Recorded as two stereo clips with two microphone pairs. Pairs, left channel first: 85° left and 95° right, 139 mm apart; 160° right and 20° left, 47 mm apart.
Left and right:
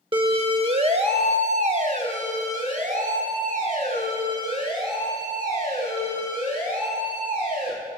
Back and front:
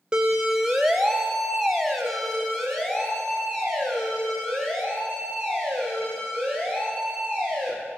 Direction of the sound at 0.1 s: 50° right.